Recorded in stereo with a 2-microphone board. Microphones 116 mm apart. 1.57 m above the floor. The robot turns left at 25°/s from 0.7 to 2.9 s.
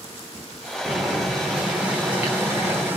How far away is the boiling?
About 1.2 m.